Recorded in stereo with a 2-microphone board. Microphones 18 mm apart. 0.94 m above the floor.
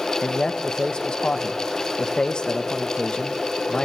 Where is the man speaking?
45° left (ahead or behind), 0.8 m.